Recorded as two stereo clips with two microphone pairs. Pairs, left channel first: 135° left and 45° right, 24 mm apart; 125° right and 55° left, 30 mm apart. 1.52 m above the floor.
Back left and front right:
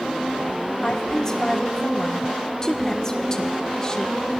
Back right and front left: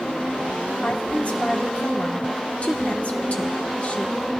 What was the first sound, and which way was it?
A woman speaking, 160° right.